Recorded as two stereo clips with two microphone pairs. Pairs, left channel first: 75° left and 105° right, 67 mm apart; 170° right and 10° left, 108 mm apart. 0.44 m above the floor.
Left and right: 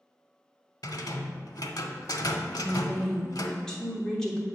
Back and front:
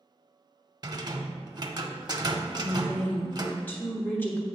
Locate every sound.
0.8 s a rattle: 55° left, 0.7 m
2.5 s a woman speaking: 145° left, 1.2 m